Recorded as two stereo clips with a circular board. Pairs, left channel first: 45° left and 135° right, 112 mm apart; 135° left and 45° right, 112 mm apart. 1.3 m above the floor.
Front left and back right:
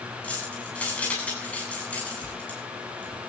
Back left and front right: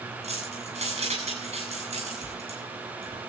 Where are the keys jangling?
35° right, 8.5 m.